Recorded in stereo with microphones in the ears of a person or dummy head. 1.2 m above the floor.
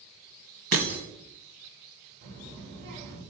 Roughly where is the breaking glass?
Right.